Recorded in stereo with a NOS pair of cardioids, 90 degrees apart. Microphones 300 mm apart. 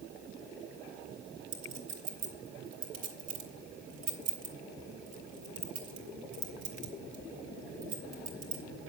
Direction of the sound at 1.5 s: 65° right.